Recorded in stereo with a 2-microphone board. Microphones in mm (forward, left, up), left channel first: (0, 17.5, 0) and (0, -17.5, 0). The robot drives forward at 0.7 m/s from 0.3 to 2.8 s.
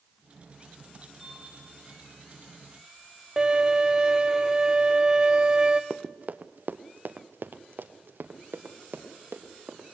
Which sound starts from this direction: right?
Running footsteps, at 5.9 s.